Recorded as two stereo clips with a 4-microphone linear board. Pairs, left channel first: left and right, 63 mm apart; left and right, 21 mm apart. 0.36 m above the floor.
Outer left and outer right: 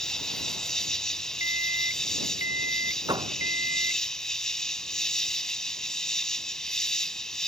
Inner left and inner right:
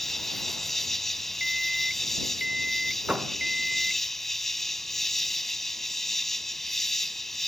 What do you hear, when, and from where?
0.0 s an insect: 10° left (ahead or behind)
1.4 s an alarm clock: 45° right (ahead or behind)
3.1 s a door slam: 85° right